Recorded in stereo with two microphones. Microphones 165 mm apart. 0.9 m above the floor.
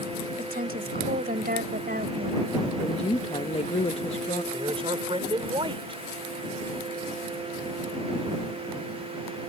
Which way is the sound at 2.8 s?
40° left (ahead or behind).